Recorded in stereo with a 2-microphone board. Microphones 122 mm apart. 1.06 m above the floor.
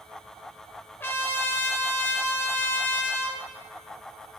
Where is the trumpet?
20° left (ahead or behind), 0.6 m.